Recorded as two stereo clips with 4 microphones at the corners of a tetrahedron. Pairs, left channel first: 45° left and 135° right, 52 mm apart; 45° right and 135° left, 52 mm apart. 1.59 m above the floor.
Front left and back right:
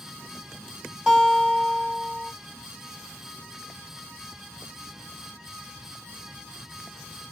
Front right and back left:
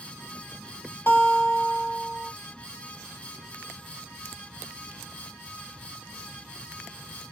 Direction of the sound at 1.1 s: 70° right.